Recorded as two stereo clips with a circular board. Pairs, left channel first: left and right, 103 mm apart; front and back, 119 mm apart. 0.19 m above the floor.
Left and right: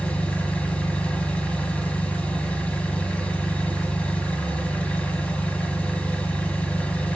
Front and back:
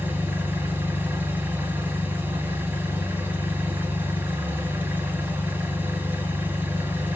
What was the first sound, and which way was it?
An engine running, 140° left.